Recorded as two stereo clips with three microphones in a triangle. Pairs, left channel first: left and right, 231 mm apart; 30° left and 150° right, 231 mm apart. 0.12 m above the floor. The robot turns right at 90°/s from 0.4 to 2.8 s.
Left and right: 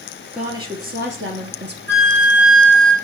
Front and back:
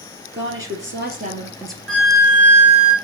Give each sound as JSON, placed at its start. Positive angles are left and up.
{"t": 0.3, "sound": "a woman speaking", "azimuth_deg": -175, "distance_m": 2.5}
{"t": 1.9, "sound": "a flute", "azimuth_deg": -60, "distance_m": 2.0}